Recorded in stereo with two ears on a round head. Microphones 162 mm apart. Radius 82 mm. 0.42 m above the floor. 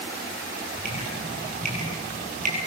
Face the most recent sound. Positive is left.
turn(degrees=-45)  # may be behind; listen again after turning